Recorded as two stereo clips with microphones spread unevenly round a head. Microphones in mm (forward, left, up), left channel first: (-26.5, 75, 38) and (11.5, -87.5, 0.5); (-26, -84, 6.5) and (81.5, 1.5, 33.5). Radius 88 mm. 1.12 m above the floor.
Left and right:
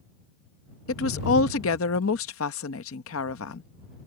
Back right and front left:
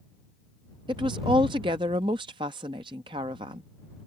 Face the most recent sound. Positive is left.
turn(degrees=105)